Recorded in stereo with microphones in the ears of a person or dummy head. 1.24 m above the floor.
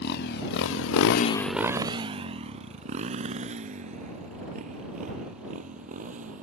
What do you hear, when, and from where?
0.0 s a motorcycle: 60° left (ahead or behind); by 6.4 s 40° right (ahead or behind)